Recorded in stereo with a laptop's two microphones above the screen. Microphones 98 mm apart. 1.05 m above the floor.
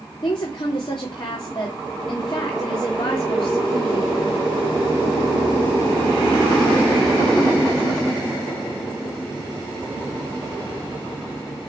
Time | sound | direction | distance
0.2 | a woman speaking | 55° left (ahead or behind) | 3 m